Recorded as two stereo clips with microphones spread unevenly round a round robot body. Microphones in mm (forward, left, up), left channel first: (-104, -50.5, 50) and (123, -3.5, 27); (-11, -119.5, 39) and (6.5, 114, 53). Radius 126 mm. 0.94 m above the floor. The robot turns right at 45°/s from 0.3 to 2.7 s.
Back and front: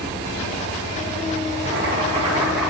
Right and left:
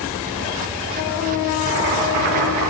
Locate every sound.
1.6 s boiling: 60° left, 6.5 m; by 2.7 s 105° left, 6.5 m